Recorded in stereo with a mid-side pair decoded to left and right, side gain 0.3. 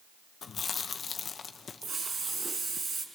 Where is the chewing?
70° left, 0.9 m.